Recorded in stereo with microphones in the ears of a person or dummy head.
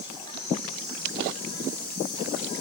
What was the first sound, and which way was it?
An insect, 25° left (ahead or behind).